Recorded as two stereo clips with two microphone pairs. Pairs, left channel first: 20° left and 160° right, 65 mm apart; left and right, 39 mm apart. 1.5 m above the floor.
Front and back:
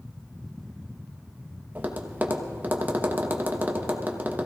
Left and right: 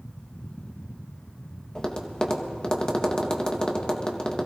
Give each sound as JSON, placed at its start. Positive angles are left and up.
{"t": 1.8, "sound": "tapping", "azimuth_deg": 150, "distance_m": 1.0}